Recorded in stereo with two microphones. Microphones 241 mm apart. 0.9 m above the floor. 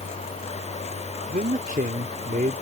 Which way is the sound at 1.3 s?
35° right (ahead or behind).